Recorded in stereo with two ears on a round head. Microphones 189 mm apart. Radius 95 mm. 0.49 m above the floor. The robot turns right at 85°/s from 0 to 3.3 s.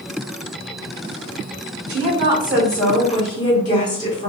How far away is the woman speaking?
About 1.6 m.